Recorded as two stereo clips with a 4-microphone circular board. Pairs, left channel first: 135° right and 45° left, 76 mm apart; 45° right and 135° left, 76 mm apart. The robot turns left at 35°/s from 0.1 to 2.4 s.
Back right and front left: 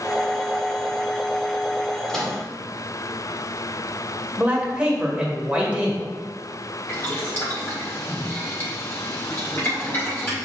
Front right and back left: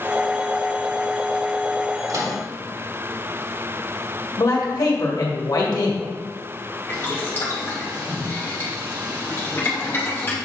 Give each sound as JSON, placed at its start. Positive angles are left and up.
{"t": 2.1, "sound": "a microwave", "azimuth_deg": 145, "distance_m": 1.4}
{"t": 4.4, "sound": "a man speaking", "azimuth_deg": -30, "distance_m": 1.8}
{"t": 6.9, "sound": "boiling", "azimuth_deg": -95, "distance_m": 1.8}